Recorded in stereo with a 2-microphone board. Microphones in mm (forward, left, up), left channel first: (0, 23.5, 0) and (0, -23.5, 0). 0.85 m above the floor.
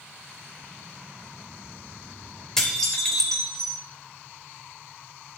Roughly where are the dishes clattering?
Centre.